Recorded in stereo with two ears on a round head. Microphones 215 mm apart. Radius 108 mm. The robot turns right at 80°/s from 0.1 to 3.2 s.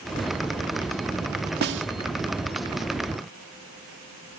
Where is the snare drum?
45° right (ahead or behind); by 1.9 s 60° right (ahead or behind).